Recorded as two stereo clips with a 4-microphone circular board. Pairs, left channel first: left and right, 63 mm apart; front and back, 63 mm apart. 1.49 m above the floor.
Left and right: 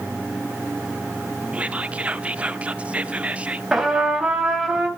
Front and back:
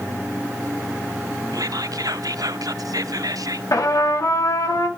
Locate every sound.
1.5 s whispering: 160° right, 0.7 m
3.7 s a trumpet: 10° right, 2.5 m